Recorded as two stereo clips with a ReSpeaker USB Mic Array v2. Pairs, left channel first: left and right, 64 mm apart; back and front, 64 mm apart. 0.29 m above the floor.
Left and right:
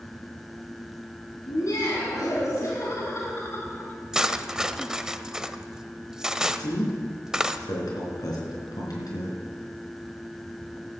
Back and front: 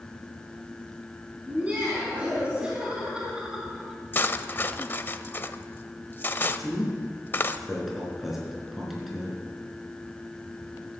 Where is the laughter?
70° left, 3 m; by 4.0 s 80° left, 1.3 m.